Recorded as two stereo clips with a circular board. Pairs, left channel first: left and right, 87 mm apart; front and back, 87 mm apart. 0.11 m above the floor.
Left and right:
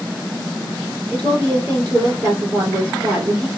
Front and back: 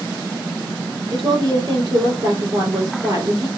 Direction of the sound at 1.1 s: 140° right.